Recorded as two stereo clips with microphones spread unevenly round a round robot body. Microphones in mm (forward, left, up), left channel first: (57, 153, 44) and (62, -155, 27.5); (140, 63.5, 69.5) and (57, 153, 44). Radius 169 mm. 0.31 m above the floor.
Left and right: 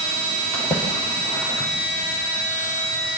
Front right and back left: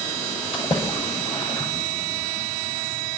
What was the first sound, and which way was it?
A splash, straight ahead.